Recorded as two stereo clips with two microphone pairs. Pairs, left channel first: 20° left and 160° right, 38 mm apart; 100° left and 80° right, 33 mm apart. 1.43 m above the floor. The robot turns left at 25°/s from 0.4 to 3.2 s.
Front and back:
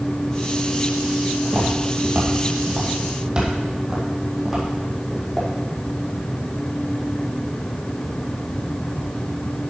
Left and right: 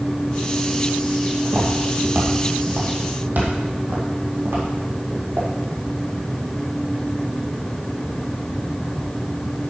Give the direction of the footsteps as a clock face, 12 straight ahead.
4 o'clock.